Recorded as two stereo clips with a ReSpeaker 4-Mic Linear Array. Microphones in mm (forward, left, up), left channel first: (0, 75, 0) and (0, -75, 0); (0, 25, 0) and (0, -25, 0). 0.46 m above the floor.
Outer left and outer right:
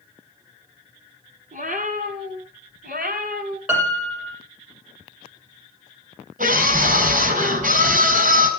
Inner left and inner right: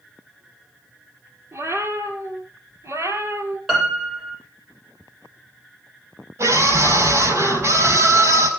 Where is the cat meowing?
65° right (ahead or behind), 3.5 m; by 3.6 s 85° right, 2.5 m.